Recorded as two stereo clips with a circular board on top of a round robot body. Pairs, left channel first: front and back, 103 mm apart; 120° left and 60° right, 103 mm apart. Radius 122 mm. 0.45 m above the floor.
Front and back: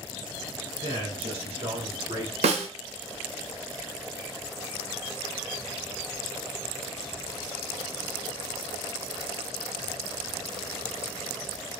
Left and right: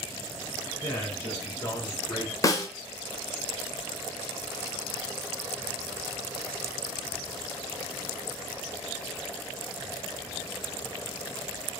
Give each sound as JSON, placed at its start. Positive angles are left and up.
{"t": 0.8, "sound": "a man speaking", "azimuth_deg": 180, "distance_m": 2.5}
{"t": 2.4, "sound": "a snare drum", "azimuth_deg": 175, "distance_m": 0.7}